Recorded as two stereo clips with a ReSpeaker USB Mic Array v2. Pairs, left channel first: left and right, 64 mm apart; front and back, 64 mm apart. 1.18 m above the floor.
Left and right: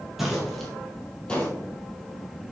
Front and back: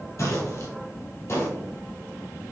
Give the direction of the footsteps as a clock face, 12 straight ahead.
12 o'clock.